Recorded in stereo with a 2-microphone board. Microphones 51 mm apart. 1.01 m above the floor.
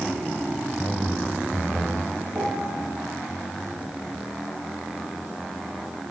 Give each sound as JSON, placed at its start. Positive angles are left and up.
{"t": 0.8, "sound": "a man speaking", "side_deg": -45, "distance_m": 4.5}
{"t": 2.3, "sound": "a piano", "side_deg": -65, "distance_m": 9.0}